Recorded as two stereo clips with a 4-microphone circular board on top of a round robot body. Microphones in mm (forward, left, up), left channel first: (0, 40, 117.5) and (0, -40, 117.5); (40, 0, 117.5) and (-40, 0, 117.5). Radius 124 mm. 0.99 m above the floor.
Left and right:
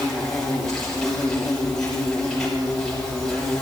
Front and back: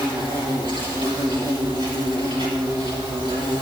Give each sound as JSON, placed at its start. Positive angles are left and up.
{"t": 0.0, "sound": "an insect", "azimuth_deg": 170, "distance_m": 6.0}